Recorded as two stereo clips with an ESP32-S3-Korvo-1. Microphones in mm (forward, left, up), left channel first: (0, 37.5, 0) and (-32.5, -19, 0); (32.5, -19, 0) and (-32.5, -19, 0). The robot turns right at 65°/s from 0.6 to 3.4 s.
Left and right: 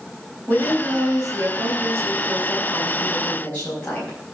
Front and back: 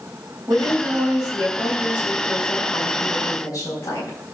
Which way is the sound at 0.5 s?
175° left.